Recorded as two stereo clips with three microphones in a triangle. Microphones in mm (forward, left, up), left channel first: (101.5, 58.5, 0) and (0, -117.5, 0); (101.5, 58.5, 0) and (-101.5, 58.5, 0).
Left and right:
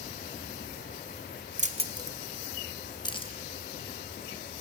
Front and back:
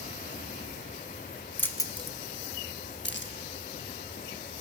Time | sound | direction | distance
1.6 | keys jangling | 80° right | 0.8 m